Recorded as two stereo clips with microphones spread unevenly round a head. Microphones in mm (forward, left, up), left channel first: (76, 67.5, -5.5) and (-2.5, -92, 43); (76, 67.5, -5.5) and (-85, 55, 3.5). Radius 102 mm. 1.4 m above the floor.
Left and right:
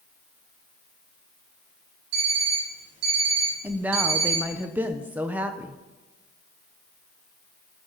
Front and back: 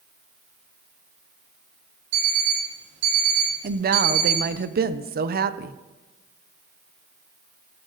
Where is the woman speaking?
155° left, 0.8 m.